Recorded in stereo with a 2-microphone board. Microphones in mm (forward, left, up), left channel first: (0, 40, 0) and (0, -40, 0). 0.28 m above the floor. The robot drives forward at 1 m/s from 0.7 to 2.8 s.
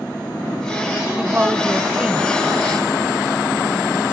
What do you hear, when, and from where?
1.2 s a woman speaking: 20° right (ahead or behind); by 4.1 s 15° right (ahead or behind)